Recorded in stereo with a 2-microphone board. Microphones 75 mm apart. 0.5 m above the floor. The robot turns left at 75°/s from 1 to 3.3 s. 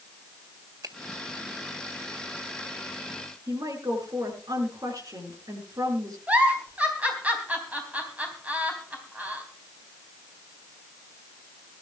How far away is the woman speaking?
About 7 m.